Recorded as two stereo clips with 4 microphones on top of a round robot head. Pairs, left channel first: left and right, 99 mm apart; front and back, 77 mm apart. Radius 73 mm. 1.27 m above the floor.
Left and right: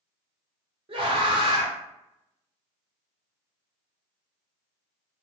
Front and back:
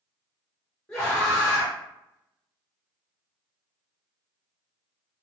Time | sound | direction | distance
0.9 | a scream | 75° right | 1.0 m